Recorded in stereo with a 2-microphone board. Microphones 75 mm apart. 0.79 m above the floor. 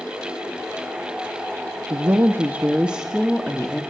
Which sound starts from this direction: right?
A woman speaking, at 1.9 s.